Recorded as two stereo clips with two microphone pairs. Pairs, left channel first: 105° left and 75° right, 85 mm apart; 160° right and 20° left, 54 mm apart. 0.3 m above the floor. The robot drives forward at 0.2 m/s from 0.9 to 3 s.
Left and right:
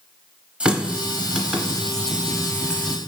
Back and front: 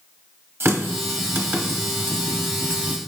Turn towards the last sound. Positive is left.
turn(degrees=-5)